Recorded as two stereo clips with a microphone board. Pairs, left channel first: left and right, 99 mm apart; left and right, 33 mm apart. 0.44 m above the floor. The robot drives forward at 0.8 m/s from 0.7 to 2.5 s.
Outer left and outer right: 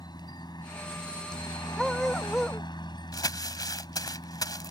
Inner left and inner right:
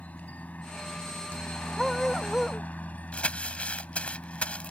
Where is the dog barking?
Centre (ahead or behind).